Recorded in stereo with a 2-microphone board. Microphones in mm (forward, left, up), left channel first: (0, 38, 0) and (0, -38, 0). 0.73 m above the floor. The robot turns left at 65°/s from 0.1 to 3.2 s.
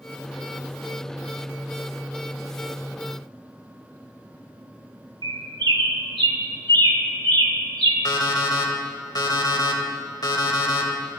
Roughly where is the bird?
Right.